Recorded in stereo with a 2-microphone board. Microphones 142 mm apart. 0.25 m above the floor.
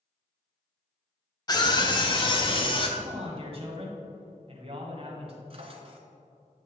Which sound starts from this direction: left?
A scream, at 1.5 s.